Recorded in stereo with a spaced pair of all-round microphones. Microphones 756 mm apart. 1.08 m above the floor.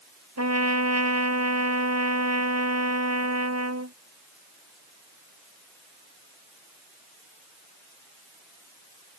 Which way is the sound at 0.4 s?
20° right (ahead or behind).